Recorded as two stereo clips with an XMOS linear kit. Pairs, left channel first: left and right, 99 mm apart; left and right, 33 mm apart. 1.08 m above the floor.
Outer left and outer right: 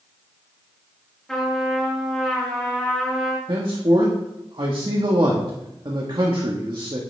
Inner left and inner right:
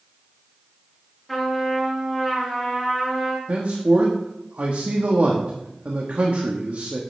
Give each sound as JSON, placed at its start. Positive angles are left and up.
{"t": 1.3, "sound": "a trumpet", "side_deg": 5, "distance_m": 3.0}
{"t": 3.5, "sound": "a man speaking", "side_deg": -55, "distance_m": 1.6}